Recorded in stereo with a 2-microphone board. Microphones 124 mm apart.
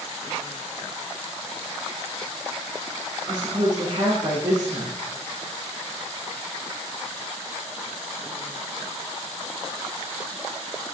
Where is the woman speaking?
35° right (ahead or behind), 5.5 m.